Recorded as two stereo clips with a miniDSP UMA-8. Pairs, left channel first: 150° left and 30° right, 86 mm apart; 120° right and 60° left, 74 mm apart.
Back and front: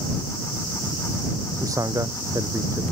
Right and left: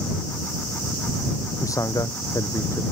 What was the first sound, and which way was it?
A man speaking, 80° right.